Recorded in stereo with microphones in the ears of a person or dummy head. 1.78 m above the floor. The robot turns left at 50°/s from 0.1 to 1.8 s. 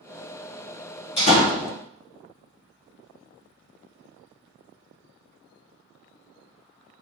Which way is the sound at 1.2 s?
25° left (ahead or behind).